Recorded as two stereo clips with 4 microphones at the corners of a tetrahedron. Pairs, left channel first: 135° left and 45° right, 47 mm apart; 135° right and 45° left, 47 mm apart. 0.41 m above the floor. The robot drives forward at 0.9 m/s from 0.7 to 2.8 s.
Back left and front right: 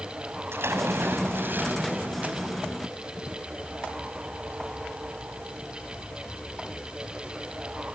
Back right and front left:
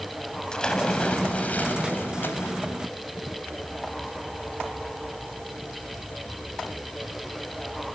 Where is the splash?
65° right, 2.5 m; by 2.6 s 105° right, 2.5 m.